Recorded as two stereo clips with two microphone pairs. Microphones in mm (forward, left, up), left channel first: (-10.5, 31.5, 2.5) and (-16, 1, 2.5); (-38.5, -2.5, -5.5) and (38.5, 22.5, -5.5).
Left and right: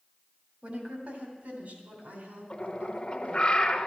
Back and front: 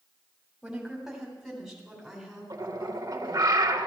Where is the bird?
25° left, 0.9 m.